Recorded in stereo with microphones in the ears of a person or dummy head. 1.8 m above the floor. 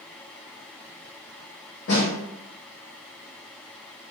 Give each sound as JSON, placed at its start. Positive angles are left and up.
{"t": 1.9, "sound": "a snare drum", "side_deg": 55, "distance_m": 1.7}